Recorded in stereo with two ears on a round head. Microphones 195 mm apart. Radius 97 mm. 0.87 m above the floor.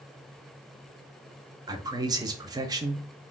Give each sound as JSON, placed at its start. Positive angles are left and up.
{"t": 1.7, "sound": "a man speaking", "side_deg": -20, "distance_m": 0.6}